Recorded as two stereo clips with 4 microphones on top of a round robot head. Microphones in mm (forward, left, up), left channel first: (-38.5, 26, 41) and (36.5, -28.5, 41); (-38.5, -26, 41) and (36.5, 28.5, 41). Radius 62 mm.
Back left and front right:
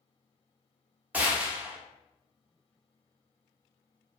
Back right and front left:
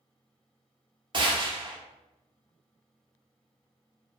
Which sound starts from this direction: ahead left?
A gunshot, at 1.1 s.